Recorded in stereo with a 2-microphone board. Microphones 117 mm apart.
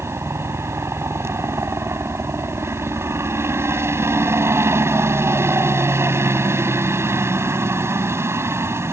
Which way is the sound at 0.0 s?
25° right (ahead or behind).